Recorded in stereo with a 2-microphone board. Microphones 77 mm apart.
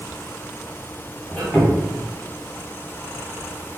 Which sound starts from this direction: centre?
A squeak, at 1.3 s.